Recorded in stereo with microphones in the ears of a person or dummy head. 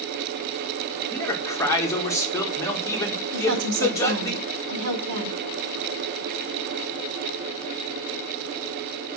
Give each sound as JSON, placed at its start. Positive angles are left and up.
{"t": 1.1, "sound": "a man speaking", "side_deg": 20, "distance_m": 1.7}
{"t": 3.3, "sound": "a woman speaking", "side_deg": -75, "distance_m": 2.5}